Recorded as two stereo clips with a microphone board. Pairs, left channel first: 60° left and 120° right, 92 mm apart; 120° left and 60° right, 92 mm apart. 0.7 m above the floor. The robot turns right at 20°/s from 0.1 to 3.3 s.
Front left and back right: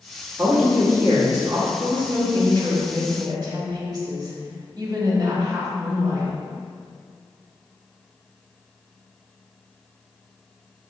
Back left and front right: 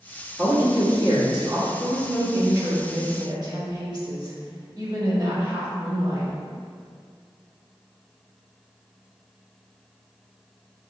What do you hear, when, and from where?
0.4 s a man speaking: 95° right, 1.1 m; by 1.7 s 70° right, 1.1 m
1.8 s a woman speaking: 115° right, 1.3 m; by 6.3 s 85° right, 1.3 m